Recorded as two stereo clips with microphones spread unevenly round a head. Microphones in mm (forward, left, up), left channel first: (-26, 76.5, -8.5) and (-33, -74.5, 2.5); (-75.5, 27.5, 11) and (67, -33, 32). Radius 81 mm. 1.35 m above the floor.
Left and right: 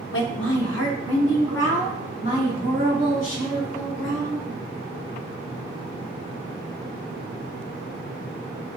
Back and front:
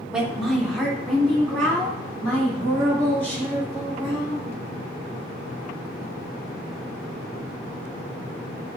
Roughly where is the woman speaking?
Ahead left.